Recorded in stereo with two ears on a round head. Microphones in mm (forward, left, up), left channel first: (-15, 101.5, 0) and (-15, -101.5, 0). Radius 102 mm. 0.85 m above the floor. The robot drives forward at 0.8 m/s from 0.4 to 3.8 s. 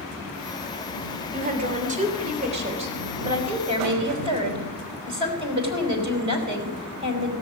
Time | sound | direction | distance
1.3 | a woman speaking | 40° right (ahead or behind) | 3 m